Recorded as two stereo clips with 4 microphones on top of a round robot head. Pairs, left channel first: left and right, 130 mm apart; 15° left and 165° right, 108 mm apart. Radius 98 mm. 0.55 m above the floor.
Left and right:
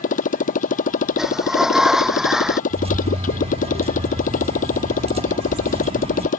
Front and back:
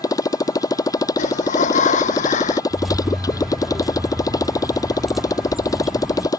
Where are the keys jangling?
80° right.